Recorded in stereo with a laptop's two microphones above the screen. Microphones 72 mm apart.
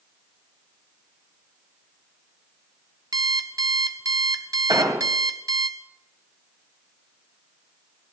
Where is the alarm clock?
60° right (ahead or behind), 1.0 m.